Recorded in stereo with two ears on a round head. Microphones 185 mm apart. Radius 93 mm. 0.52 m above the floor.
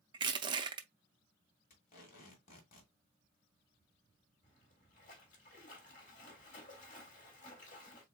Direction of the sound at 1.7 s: 40° left (ahead or behind).